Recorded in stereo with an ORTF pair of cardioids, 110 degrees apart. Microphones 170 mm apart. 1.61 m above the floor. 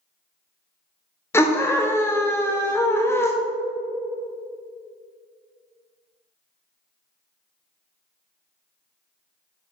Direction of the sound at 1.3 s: 15° left.